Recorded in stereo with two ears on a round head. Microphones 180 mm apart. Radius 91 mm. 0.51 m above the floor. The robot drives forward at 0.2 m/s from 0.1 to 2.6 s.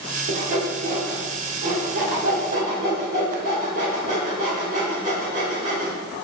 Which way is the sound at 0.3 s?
45° right (ahead or behind).